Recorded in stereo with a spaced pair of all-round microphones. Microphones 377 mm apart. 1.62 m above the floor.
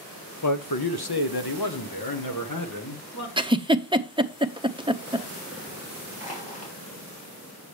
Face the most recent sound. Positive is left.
turn(degrees=20)  # may be behind; listen again after turning